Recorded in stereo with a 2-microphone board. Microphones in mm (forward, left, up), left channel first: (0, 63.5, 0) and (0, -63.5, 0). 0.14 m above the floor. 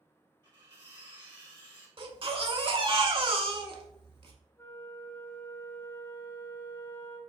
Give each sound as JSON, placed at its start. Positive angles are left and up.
{"t": 0.4, "sound": "cutlery clinking", "side_deg": -35, "distance_m": 2.0}
{"t": 2.0, "sound": "a baby crying", "side_deg": -40, "distance_m": 0.7}
{"t": 4.6, "sound": "a flute", "side_deg": 20, "distance_m": 0.6}